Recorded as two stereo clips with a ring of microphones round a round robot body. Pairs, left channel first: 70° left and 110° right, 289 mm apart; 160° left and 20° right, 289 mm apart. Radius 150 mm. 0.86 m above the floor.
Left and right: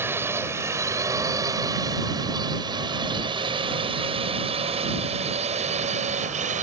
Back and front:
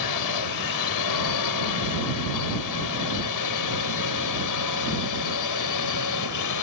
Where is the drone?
165° left; by 6.6 s straight behind.